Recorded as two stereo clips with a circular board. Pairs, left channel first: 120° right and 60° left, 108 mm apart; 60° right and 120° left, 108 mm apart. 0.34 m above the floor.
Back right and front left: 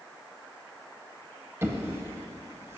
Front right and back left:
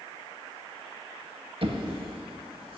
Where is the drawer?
120° left, 0.7 m.